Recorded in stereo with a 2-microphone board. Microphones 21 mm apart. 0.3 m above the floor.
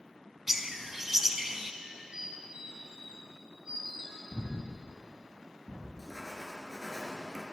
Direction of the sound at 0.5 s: 20° right (ahead or behind).